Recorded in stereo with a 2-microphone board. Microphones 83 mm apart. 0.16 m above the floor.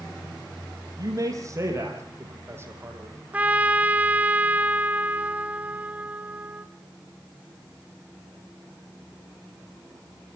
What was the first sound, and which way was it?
A man speaking, 45° right (ahead or behind).